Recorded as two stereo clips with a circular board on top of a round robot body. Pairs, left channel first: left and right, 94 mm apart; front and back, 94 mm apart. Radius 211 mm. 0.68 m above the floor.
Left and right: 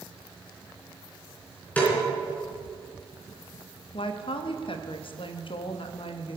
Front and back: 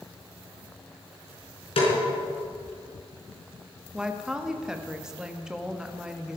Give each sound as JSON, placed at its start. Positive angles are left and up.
{"t": 1.8, "sound": "a snare drum", "azimuth_deg": 15, "distance_m": 4.0}
{"t": 3.9, "sound": "a woman speaking", "azimuth_deg": 95, "distance_m": 1.4}